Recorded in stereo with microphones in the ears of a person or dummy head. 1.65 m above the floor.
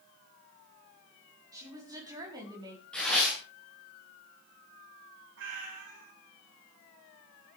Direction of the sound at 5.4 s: 75° right (ahead or behind).